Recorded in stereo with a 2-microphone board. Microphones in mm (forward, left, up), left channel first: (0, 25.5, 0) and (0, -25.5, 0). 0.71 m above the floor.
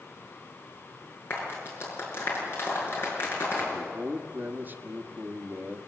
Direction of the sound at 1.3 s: 45° left (ahead or behind).